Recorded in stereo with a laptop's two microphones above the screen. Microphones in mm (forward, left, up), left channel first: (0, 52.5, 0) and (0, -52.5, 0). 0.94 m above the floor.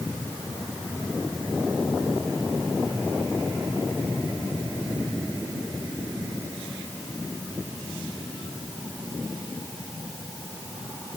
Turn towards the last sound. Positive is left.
No sound to turn to.